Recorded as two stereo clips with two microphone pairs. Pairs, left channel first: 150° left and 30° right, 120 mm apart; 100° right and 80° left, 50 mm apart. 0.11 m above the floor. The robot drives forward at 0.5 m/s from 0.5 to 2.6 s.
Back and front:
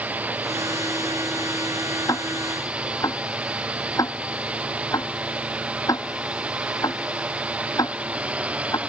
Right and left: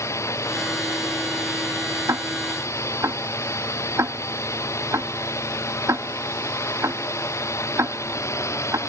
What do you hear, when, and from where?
0.0 s a drone: 110° right
2.1 s ticking: 85° left; by 8.8 s 90° left